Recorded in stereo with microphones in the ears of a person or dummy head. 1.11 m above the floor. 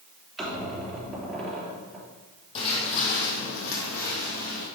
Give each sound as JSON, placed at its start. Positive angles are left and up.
{"t": 0.4, "sound": "a squeak", "side_deg": 0, "distance_m": 3.5}
{"t": 2.5, "sound": "footsteps", "side_deg": 30, "distance_m": 1.7}